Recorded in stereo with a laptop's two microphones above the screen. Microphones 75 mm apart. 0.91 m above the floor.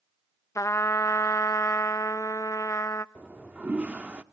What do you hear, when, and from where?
0.6 s a trumpet: 45° left (ahead or behind), 0.7 m
3.1 s a toilet flushing: 20° right (ahead or behind), 0.5 m